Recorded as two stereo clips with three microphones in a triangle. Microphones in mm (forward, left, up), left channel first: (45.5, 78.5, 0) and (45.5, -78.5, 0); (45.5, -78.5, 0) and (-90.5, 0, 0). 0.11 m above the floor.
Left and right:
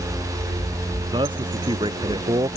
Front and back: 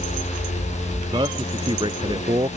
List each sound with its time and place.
1.1 s a man speaking: 150° right